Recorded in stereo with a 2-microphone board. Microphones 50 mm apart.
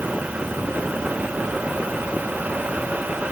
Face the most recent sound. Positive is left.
No sound to turn to.